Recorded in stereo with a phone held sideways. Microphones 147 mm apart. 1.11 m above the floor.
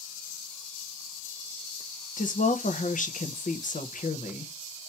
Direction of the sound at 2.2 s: 70° left (ahead or behind).